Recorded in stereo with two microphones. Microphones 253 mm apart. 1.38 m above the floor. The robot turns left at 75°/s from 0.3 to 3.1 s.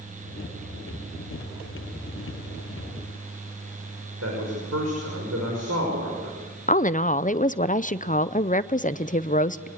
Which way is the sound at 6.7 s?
30° left (ahead or behind).